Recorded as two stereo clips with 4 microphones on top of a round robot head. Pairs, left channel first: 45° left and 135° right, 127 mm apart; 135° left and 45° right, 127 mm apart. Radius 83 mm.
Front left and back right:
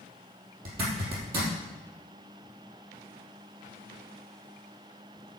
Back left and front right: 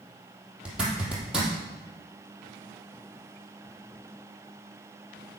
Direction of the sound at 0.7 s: 130° right.